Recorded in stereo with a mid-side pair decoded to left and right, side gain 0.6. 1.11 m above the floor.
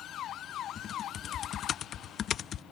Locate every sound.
0.8 s typing on a keyboard: 45° left